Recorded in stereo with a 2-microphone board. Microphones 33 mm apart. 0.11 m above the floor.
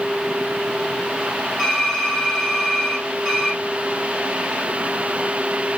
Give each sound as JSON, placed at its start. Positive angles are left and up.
{"t": 1.6, "sound": "typing on a keyboard", "side_deg": 10, "distance_m": 3.0}